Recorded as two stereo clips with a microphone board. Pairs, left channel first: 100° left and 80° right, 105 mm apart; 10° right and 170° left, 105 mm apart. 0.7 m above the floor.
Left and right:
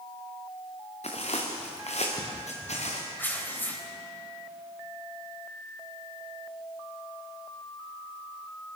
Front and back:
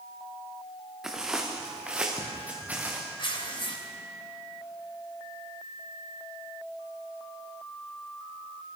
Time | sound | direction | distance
1.0 | footsteps | 85° left | 4 m
3.2 | tearing paper | 30° left | 3.5 m